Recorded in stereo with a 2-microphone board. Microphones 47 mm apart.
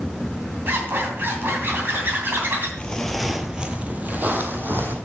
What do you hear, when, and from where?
0.7 s a zipper: 50° right (ahead or behind), 2.5 m
2.8 s footsteps: 20° left (ahead or behind), 0.9 m; by 5.0 s 45° right (ahead or behind), 1.9 m